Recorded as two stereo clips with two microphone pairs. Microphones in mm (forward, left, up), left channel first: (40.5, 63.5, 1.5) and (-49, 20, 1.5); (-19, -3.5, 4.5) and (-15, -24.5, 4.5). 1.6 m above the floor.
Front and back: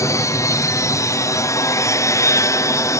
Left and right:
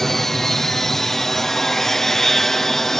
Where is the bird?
I don't hear a bird.